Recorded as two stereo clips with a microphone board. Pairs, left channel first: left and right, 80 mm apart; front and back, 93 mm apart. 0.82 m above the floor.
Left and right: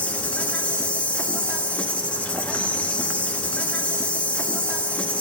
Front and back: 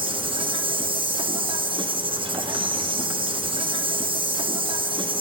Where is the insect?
165° left, 0.7 m.